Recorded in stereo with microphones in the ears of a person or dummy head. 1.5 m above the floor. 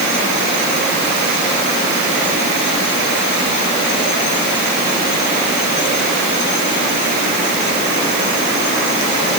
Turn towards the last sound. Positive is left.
No sound to turn to.